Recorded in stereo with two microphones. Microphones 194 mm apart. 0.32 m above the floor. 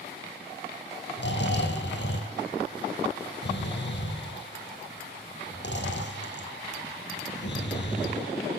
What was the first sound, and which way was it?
Snoring, 65° left (ahead or behind).